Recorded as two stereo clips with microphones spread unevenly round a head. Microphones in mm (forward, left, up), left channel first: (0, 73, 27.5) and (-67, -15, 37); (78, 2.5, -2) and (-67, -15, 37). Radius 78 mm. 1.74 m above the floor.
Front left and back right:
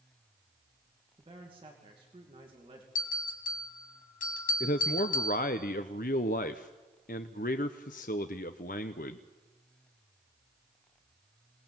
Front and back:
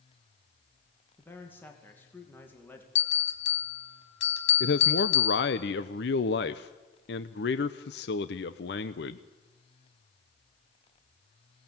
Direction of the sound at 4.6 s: 35° left.